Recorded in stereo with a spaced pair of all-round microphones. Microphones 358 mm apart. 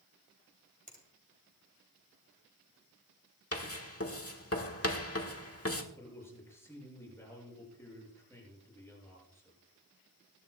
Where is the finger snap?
20° right (ahead or behind), 3 m.